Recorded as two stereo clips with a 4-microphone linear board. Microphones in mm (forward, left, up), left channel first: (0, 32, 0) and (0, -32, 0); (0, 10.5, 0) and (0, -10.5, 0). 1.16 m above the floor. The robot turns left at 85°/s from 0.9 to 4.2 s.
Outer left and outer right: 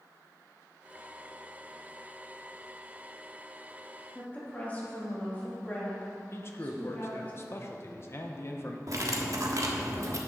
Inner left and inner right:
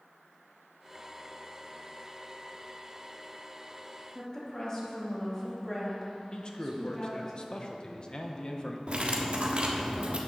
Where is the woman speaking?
20° left (ahead or behind), 2.5 m; by 7.3 s 25° left (ahead or behind), 2.5 m.